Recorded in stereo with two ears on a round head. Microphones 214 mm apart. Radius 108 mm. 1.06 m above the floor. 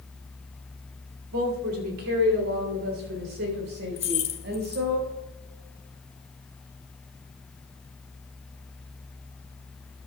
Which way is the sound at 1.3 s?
70° right (ahead or behind).